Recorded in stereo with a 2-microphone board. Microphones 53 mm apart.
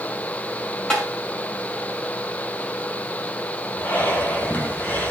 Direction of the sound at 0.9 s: 20° left (ahead or behind).